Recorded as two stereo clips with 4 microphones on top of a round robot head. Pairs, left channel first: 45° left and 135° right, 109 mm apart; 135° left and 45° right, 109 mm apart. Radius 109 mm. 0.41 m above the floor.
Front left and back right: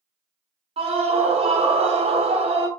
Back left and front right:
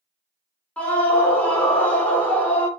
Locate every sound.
0.8 s a scream: 150° right, 1.3 m